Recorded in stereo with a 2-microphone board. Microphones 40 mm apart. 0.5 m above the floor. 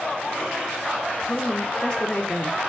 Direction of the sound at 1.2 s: 25° left (ahead or behind).